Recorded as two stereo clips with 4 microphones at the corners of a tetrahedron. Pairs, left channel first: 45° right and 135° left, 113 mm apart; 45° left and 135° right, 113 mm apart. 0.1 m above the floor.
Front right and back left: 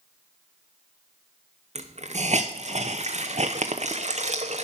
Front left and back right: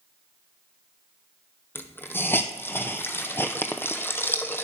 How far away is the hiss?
About 0.9 m.